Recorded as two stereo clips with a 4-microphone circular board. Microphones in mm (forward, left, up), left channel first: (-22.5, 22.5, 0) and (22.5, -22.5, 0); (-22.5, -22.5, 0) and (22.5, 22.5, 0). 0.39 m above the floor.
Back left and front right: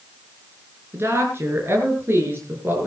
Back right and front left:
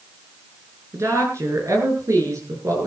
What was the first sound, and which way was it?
A woman speaking, 5° left.